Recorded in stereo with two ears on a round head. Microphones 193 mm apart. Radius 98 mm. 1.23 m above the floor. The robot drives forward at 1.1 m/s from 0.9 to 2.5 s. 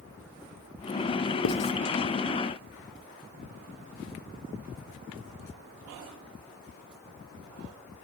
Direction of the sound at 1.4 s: 70° left (ahead or behind).